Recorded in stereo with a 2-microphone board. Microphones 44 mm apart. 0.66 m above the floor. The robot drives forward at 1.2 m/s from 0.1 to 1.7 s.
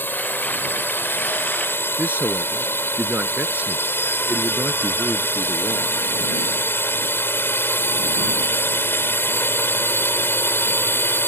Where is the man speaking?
35° right (ahead or behind).